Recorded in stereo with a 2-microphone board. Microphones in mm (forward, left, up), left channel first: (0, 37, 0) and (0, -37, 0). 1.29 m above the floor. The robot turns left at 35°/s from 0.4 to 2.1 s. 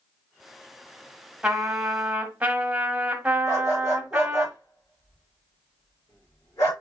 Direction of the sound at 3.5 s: 45° left (ahead or behind).